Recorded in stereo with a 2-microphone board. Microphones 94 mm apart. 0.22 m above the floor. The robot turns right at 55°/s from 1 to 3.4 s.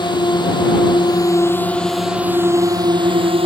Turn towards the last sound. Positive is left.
turn(degrees=-100)